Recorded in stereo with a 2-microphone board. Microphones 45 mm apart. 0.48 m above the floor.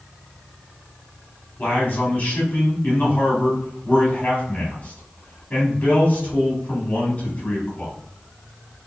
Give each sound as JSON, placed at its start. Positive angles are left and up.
{"t": 1.6, "sound": "a man speaking", "side_deg": 35, "distance_m": 1.7}